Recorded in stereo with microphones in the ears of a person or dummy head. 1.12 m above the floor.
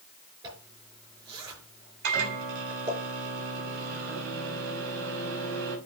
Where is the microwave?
75° right (ahead or behind), 4.5 m.